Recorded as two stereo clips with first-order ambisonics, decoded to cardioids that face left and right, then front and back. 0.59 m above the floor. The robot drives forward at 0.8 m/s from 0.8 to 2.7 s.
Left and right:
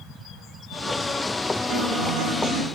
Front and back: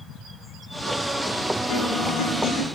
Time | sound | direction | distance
1.7 | a guitar | 45° right | 8 m